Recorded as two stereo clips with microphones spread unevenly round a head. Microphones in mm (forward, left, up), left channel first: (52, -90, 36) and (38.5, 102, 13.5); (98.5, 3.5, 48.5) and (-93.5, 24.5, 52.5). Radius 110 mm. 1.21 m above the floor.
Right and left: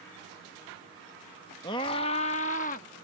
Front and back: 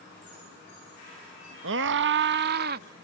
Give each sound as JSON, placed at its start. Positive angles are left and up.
{"t": 1.6, "sound": "a scream", "azimuth_deg": -160}